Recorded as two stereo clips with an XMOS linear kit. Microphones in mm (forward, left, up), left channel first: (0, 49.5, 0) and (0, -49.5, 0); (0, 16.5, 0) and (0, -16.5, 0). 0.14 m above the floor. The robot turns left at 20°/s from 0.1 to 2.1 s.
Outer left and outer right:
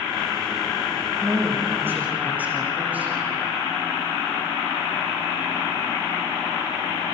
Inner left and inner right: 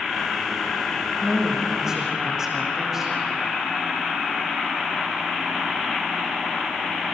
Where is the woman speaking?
35° right (ahead or behind), 7.5 m; by 3.1 s 15° right (ahead or behind), 7.5 m.